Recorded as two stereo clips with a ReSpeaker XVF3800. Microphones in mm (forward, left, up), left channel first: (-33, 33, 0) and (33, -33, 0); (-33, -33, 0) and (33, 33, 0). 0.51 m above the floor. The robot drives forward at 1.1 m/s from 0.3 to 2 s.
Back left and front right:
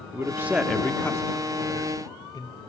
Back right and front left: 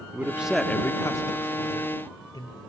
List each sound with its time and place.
0.1 s a man speaking: 10° right, 0.7 m; by 2.6 s 175° right, 1.7 m